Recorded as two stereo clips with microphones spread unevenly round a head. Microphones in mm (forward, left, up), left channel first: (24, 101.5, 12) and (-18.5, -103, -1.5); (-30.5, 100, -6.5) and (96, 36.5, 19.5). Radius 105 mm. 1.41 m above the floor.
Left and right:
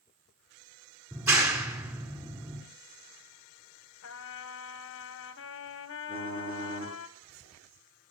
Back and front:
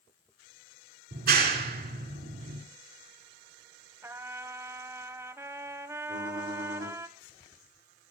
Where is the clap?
25° right, 4.5 m.